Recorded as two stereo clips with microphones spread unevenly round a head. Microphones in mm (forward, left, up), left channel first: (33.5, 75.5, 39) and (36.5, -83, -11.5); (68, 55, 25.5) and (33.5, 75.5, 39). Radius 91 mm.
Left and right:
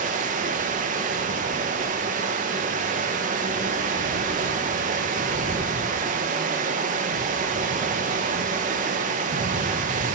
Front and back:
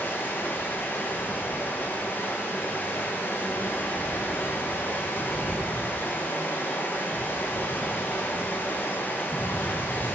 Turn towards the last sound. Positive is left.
turn(degrees=-80)